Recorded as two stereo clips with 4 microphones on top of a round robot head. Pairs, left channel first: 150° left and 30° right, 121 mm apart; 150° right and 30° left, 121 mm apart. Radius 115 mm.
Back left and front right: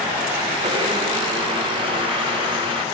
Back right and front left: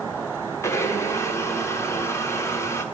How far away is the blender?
About 1.4 m.